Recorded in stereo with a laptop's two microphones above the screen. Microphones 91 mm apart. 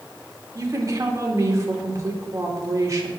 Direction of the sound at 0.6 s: 35° right (ahead or behind).